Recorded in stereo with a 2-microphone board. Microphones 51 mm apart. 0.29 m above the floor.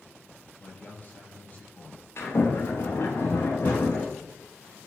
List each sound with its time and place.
0.6 s a man speaking: 35° left (ahead or behind), 9 m
2.2 s a sliding door: 60° left (ahead or behind), 9 m